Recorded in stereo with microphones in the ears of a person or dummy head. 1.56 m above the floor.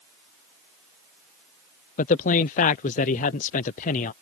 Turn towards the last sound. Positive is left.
turn(degrees=45)  # may be behind; listen again after turning